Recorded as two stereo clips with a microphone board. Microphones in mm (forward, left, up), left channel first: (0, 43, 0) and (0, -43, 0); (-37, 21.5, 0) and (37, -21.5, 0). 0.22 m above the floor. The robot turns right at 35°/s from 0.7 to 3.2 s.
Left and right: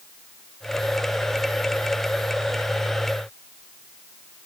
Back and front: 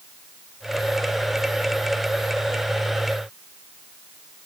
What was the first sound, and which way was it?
Only background noise.